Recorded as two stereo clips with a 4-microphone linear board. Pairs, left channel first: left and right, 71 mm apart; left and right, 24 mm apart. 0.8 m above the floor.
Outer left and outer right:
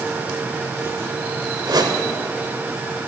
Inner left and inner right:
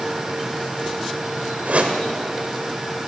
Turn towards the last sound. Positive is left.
turn(degrees=-70)  # may be behind; listen again after turning